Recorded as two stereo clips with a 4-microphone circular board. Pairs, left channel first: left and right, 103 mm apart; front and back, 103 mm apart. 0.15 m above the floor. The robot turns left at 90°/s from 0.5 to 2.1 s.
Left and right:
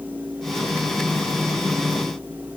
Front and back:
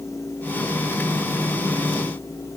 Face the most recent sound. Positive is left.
No sound to turn to.